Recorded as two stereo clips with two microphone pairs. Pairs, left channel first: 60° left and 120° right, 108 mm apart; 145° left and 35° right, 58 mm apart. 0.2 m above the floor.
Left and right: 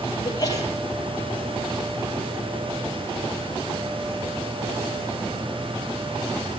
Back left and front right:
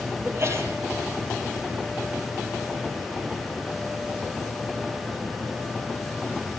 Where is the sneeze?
5° left, 6 m.